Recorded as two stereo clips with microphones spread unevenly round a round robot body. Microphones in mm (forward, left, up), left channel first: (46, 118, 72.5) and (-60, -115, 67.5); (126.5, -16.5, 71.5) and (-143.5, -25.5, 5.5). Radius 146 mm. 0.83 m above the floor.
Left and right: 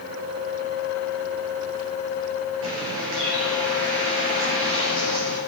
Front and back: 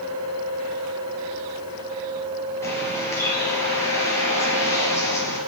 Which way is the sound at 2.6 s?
75° right.